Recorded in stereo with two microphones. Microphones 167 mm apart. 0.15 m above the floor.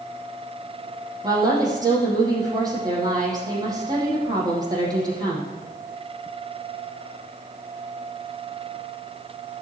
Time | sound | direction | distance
1.2 | a woman speaking | 20° right (ahead or behind) | 4.5 m